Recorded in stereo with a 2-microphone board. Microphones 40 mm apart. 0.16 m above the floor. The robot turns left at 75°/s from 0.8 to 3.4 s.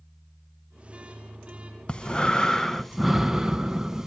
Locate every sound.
1.9 s breathing: 25° left (ahead or behind), 0.6 m; by 4.1 s 15° right (ahead or behind), 0.6 m